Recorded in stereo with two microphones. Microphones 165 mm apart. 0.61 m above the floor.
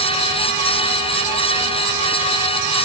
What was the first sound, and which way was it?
Only background noise.